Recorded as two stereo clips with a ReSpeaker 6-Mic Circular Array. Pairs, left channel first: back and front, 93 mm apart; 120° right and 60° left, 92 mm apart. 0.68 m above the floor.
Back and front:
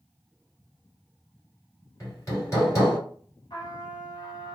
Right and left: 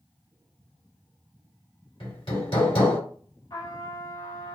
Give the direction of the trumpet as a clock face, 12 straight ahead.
5 o'clock.